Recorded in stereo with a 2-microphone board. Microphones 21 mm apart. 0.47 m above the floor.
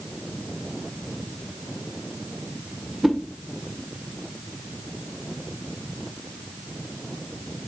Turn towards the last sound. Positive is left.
turn(degrees=-20)  # may be behind; listen again after turning